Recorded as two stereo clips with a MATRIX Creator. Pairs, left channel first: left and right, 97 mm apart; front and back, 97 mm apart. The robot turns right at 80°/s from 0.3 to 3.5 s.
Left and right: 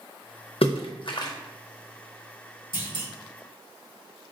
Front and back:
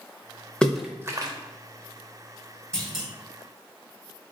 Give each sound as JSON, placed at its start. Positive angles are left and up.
{"t": 0.6, "sound": "a splash", "azimuth_deg": 80, "distance_m": 0.6}
{"t": 2.7, "sound": "a clunk", "azimuth_deg": 80, "distance_m": 1.2}